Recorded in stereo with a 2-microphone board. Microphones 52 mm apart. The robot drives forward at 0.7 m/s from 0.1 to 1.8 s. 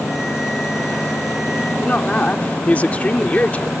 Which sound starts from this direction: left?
A woman speaking, at 1.8 s.